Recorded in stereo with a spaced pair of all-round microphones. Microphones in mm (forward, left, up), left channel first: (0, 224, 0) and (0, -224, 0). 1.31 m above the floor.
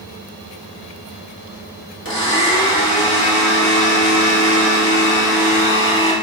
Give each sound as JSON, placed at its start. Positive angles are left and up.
{"t": 2.0, "sound": "a blender", "side_deg": 30, "distance_m": 1.4}